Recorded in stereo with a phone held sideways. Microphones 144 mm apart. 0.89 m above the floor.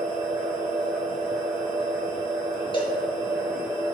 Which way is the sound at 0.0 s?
10° right (ahead or behind).